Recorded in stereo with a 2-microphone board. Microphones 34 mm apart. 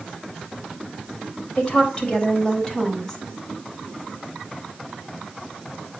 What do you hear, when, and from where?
1.6 s a woman speaking: 25° left (ahead or behind), 4 m; by 3.2 s 10° left (ahead or behind), 4.5 m